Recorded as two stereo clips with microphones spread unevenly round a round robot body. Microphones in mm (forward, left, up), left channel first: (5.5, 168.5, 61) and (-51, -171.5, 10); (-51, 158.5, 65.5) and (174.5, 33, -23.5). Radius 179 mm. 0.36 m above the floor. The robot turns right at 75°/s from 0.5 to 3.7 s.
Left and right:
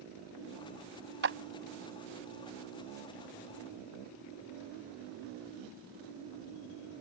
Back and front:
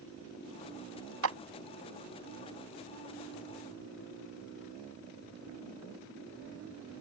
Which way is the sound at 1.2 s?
45° right.